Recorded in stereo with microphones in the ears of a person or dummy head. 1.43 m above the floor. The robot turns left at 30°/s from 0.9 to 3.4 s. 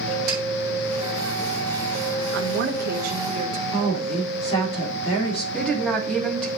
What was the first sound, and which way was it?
A snare drum, 50° right (ahead or behind).